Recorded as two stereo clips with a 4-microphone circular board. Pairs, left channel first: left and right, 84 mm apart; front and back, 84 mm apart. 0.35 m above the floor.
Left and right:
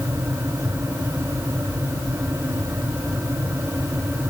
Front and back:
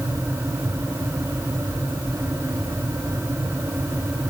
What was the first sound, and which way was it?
Only background noise.